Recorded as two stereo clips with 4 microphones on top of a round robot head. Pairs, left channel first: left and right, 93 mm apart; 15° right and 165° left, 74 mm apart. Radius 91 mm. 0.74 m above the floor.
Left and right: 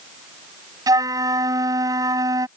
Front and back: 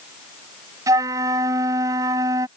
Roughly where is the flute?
Behind right.